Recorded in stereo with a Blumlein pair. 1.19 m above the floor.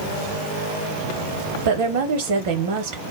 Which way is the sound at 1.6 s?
50° right.